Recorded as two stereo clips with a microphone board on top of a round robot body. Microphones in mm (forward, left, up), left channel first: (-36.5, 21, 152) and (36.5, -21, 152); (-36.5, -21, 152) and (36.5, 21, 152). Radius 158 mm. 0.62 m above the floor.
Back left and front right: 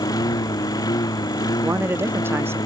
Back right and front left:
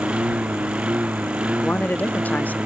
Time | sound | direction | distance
0.0 | a lawn mower | 105° left | ?
1.6 | a man speaking | 85° right | ?